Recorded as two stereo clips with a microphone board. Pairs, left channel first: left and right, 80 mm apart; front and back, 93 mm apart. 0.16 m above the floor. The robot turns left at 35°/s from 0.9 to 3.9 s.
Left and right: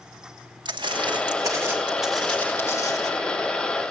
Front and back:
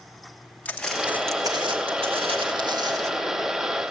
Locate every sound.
0.7 s footsteps: 75° right, 0.7 m; by 3.1 s 125° left, 1.4 m